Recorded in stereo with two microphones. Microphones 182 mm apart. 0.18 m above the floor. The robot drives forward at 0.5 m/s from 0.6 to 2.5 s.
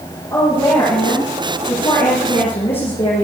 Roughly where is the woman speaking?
Left.